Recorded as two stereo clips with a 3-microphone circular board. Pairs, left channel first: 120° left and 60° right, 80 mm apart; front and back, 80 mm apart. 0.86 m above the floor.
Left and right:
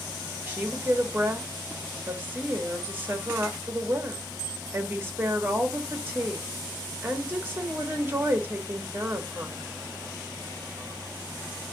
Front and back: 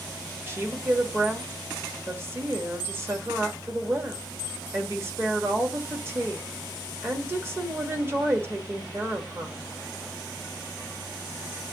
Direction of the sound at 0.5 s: 120° right.